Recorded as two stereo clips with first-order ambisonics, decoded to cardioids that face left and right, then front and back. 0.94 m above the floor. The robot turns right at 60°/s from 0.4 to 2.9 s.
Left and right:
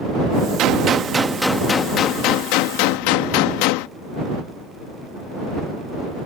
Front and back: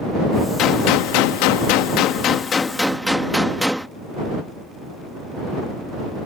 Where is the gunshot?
50° right; by 3.9 s 90° left.